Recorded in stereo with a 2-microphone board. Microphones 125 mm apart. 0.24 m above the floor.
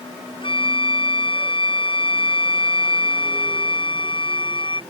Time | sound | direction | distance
0.4 | a flute | 45° left (ahead or behind) | ?